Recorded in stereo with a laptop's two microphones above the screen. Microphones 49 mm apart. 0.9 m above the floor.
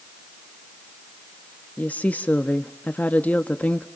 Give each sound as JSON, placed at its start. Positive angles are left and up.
{"t": 1.8, "sound": "a woman speaking", "side_deg": 30, "distance_m": 1.2}